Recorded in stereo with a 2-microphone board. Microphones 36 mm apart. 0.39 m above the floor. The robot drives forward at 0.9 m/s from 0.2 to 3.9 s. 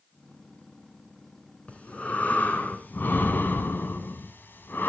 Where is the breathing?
40° left (ahead or behind), 2.5 m; by 4.9 s 75° left (ahead or behind), 1.7 m.